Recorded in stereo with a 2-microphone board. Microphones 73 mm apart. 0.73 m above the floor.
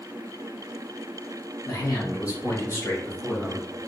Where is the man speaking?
55° left (ahead or behind), 1.2 m; by 3.7 s 15° left (ahead or behind), 1.4 m.